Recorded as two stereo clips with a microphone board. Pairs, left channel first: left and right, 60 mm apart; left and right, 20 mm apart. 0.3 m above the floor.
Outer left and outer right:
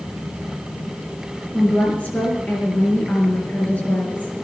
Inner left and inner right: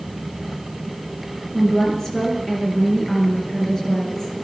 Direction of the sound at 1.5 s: 25° left (ahead or behind).